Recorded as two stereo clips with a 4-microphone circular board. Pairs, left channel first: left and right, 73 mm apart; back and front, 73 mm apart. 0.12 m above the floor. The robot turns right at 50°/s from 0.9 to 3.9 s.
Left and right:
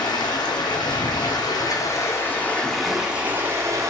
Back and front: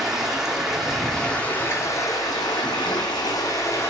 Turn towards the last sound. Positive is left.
turn(degrees=-125)